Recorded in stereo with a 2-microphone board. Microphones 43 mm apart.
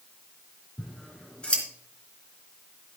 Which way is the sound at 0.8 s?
25° left (ahead or behind).